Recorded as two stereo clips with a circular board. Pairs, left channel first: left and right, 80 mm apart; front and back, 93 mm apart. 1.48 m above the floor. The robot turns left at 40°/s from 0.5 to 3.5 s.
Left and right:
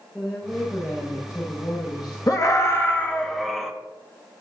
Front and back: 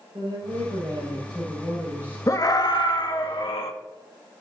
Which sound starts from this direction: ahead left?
A scream, at 2.3 s.